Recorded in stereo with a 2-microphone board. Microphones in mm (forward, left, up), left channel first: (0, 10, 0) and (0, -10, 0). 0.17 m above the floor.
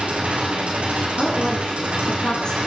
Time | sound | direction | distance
0.0 | an engine running | 80° right | 5 m
1.2 | a woman speaking | 50° left (ahead or behind) | 3.5 m